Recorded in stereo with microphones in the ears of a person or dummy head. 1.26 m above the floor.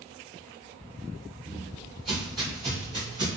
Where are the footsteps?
Centre (ahead or behind), 1.5 m; by 3.4 s 5° right (ahead or behind), 1.2 m.